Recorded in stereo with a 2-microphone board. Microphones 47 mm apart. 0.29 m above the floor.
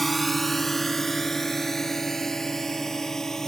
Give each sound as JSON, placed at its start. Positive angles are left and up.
{"t": 0.0, "sound": "a drone", "side_deg": 0}